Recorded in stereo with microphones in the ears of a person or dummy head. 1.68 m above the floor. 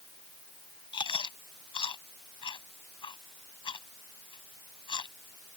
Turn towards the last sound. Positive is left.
turn(degrees=30)  # may be behind; listen again after turning